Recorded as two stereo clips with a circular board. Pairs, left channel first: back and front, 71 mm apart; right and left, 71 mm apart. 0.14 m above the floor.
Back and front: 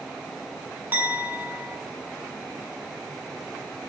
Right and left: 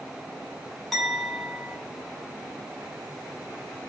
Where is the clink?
5° right, 0.8 m.